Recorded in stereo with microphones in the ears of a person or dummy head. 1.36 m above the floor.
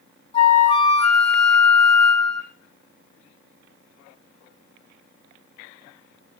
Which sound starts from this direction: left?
A flute, at 0.3 s.